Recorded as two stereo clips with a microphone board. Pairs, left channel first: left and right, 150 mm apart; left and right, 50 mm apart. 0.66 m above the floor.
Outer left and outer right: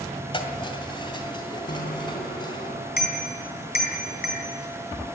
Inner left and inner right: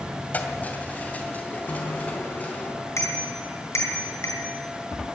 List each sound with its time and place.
0.3 s keys jangling: 35° left (ahead or behind), 2 m; by 2.7 s 30° left (ahead or behind), 4 m
1.7 s a bicycle bell: 80° left, 4 m